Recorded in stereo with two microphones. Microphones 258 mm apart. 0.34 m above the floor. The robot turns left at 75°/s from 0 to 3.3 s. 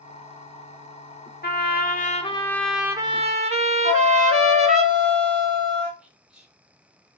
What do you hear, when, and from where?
1.4 s a trumpet: 95° left, 0.6 m; by 4.8 s 45° right, 0.6 m
3.8 s a flute: 45° right (ahead or behind), 1.8 m
6.0 s whispering: 5° right (ahead or behind), 1.0 m